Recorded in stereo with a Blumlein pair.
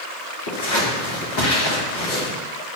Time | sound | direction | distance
0.5 | scissors | 55° left | 3 m